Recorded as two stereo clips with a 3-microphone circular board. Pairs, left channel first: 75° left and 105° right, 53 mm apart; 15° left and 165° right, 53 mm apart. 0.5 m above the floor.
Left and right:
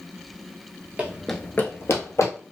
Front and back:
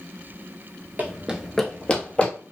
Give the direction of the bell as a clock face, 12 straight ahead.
No bell in this recording.